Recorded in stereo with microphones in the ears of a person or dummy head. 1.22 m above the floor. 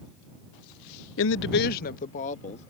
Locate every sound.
1.2 s a woman speaking: 60° left (ahead or behind); by 2.7 s 35° left (ahead or behind)